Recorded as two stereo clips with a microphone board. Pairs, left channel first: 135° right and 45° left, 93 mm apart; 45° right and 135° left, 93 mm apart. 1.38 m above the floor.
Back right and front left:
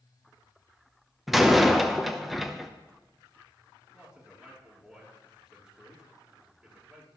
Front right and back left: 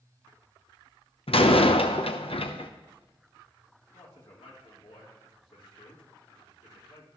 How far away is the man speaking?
About 3.5 m.